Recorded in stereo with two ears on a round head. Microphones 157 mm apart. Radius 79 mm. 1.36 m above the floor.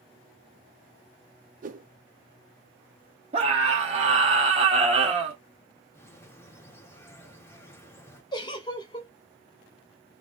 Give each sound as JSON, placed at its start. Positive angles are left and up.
{"t": 1.6, "sound": "a whoosh", "side_deg": -45, "distance_m": 0.5}
{"t": 3.3, "sound": "a scream", "side_deg": -35, "distance_m": 0.6}
{"t": 5.9, "sound": "a bird", "side_deg": 15, "distance_m": 1.1}
{"t": 8.3, "sound": "a giggle", "side_deg": 25, "distance_m": 1.2}